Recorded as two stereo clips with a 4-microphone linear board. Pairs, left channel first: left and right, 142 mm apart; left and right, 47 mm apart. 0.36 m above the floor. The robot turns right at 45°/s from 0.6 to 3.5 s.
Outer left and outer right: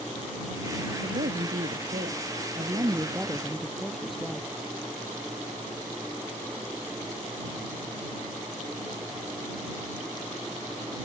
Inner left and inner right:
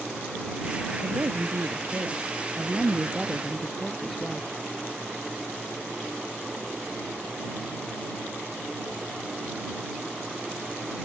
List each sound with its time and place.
1.0 s a woman speaking: 115° right; by 4.5 s straight ahead